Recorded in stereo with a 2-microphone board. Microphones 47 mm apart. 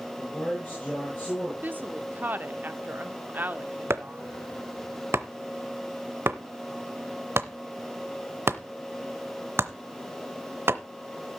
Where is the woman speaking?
45° right (ahead or behind), 0.9 m.